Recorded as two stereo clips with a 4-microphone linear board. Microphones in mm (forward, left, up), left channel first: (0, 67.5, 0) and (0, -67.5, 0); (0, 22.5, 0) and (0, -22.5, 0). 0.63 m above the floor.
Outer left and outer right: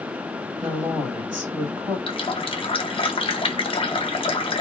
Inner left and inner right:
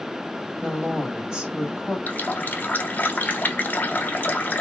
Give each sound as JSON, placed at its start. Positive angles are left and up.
{"t": 0.6, "sound": "a woman speaking", "side_deg": -20, "distance_m": 1.6}
{"t": 2.1, "sound": "a running tap", "side_deg": 40, "distance_m": 0.6}